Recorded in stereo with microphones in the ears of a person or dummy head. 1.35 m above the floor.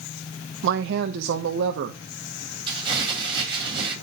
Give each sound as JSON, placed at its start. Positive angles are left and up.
{"t": 0.6, "sound": "a woman speaking", "side_deg": -60, "distance_m": 0.8}
{"t": 2.7, "sound": "crumpling", "side_deg": -20, "distance_m": 7.5}